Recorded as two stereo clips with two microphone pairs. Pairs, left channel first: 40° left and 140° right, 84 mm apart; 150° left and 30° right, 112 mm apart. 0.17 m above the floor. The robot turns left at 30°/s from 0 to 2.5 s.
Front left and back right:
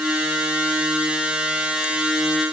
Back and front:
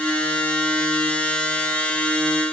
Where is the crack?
No crack in this recording.